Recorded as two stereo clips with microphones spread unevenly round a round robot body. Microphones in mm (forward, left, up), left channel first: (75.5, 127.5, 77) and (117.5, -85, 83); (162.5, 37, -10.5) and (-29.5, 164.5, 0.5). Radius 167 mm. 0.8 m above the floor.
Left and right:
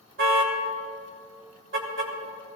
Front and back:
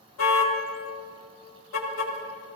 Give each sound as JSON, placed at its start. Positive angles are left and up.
{"t": 0.2, "sound": "a car horn", "azimuth_deg": -45, "distance_m": 2.0}